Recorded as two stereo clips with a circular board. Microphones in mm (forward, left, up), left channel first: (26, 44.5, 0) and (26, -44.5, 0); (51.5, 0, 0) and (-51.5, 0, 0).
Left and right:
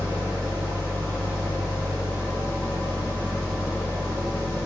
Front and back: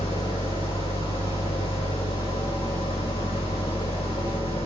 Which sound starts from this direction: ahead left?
An engine running, at 0.0 s.